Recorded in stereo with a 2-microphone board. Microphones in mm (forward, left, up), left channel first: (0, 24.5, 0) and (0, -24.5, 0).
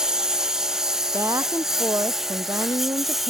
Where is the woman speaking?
80° right.